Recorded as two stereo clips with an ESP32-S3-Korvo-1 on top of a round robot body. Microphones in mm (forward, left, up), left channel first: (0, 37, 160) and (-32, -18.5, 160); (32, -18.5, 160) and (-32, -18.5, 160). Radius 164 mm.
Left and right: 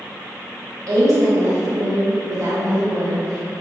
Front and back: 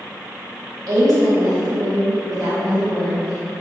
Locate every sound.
0.9 s a woman speaking: 155° right, 1.2 m